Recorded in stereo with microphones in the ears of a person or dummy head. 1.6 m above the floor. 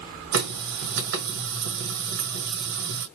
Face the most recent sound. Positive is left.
turn(degrees=-70)  # may be behind; listen again after turning